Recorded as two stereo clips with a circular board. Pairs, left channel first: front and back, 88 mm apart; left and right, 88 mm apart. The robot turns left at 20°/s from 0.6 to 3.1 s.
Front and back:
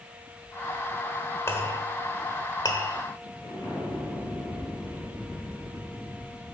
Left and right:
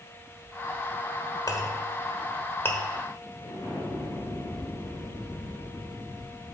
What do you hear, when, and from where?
1.5 s a clink: 55° left, 1.1 m; by 2.8 s 25° left, 1.1 m
3.4 s an explosion: 50° left, 3.5 m